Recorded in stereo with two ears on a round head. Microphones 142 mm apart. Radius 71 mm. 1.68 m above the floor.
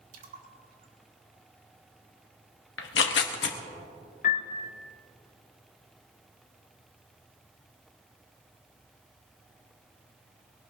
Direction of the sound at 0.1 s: 60° right (ahead or behind).